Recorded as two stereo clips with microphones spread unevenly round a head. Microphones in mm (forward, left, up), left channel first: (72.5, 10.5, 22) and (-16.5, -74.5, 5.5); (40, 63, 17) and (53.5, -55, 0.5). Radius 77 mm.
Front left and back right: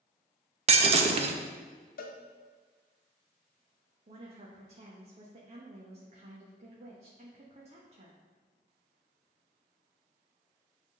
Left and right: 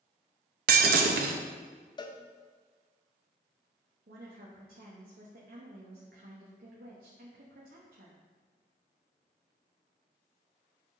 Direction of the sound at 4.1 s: 100° right.